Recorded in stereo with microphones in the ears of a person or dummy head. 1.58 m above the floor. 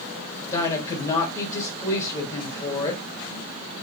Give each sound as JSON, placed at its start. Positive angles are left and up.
{"t": 0.5, "sound": "a woman speaking", "side_deg": 20, "distance_m": 1.8}